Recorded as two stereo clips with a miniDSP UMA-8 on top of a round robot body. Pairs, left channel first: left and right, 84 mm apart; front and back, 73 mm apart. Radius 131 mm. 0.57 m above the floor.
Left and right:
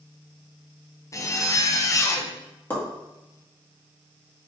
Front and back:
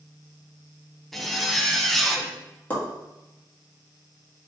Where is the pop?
50° left, 1.4 m.